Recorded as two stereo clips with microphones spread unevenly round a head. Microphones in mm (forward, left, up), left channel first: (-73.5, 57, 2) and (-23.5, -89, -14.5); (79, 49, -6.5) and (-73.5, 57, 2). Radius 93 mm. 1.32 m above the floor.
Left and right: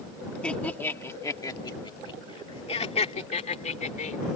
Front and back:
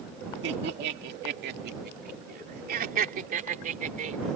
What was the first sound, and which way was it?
Laughter, 170° right.